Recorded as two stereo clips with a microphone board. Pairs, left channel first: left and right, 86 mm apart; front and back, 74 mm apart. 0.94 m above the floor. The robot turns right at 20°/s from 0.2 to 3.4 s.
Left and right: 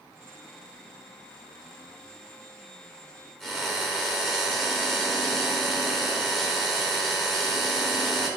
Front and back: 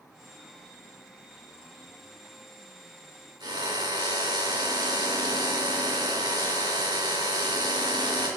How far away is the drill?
About 2.5 m.